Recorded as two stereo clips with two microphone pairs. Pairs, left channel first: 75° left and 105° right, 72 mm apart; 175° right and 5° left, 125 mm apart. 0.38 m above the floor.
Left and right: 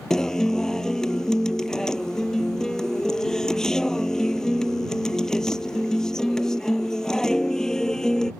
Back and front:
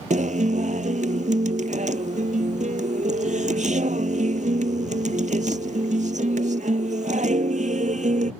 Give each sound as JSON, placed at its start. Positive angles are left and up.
{"t": 0.1, "sound": "a guitar", "azimuth_deg": -5}